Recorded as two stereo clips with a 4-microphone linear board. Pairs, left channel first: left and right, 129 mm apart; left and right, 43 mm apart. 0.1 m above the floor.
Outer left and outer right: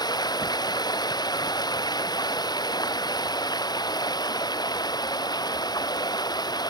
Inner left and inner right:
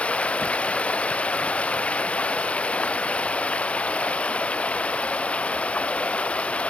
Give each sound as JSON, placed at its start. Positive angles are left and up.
{"t": 0.0, "sound": "running water", "side_deg": 30}